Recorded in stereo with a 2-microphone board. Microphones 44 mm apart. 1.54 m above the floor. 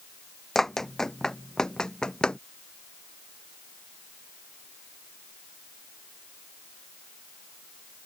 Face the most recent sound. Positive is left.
turn(degrees=20)  # may be behind; listen again after turning